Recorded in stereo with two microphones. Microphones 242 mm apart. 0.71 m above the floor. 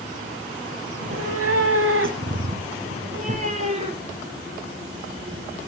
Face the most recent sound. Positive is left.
turn(degrees=-25)  # may be behind; listen again after turning